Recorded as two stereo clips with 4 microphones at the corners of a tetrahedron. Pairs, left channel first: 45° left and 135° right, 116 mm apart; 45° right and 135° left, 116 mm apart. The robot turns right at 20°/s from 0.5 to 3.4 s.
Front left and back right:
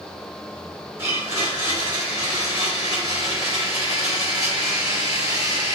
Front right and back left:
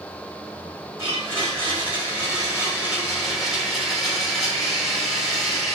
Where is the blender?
Straight behind, 1.5 m; by 5.8 s 135° right, 1.5 m.